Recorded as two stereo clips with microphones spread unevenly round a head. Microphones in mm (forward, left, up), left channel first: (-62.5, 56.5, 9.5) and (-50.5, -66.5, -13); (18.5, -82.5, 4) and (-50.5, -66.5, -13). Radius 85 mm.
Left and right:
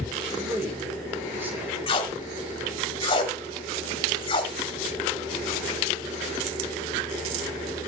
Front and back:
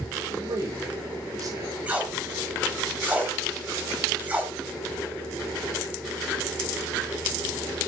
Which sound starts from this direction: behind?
A man speaking, at 0.3 s.